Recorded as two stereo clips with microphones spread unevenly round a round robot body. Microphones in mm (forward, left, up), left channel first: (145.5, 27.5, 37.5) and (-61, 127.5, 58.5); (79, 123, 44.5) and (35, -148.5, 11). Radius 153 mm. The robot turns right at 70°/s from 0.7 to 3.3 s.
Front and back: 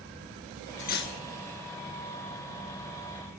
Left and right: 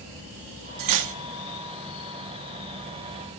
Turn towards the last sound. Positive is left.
turn(degrees=80)